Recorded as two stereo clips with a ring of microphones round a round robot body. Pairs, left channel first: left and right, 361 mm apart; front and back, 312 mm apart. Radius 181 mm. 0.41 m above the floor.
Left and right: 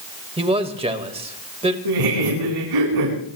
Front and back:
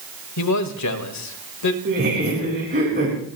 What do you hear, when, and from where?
0.4 s a man speaking: 20° right, 1.7 m
1.9 s laughter: 115° right, 4 m